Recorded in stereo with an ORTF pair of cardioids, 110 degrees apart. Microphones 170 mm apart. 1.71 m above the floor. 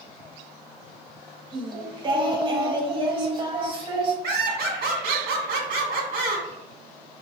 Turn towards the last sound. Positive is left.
turn(degrees=-70)